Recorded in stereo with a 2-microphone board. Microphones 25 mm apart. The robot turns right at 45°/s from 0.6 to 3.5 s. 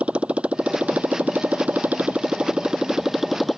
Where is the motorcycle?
125° right; by 3.6 s 5° left.